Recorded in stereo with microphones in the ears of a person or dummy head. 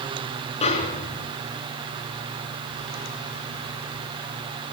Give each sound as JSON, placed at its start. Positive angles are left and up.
{"t": 0.6, "sound": "a snare drum", "side_deg": 30, "distance_m": 4.0}